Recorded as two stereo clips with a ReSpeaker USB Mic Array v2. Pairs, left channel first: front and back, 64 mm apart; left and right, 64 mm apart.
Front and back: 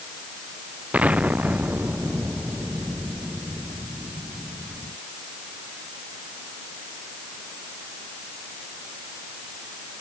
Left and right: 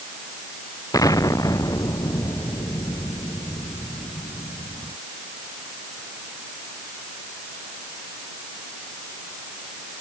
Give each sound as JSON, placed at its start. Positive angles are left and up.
{"t": 0.9, "sound": "an explosion", "azimuth_deg": 110}